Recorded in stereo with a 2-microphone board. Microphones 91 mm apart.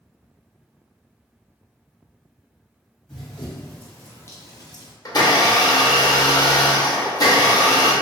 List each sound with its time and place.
3.1 s running footsteps: 5° left (ahead or behind), 1.5 m; by 4.9 s 55° left (ahead or behind), 0.7 m
5.0 s a blender: 45° left (ahead or behind), 0.6 m